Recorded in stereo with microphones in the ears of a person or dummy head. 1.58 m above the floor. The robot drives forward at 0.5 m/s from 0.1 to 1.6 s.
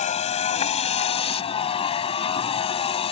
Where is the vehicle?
40° left (ahead or behind); by 3.1 s 35° left (ahead or behind).